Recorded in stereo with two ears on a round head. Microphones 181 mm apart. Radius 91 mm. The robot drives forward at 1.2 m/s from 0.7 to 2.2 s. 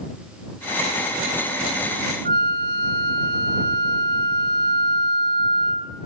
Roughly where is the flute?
Right.